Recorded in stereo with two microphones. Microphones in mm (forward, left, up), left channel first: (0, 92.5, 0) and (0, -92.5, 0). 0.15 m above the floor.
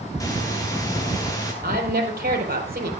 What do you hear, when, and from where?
0.2 s breathing: 15° left (ahead or behind), 5 m
1.6 s a woman speaking: 50° right (ahead or behind), 4.5 m